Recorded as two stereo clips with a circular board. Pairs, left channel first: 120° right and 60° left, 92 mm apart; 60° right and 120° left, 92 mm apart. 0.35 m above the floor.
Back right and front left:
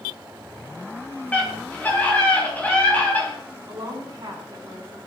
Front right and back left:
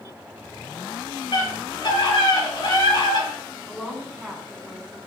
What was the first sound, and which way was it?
A scream, 50° right.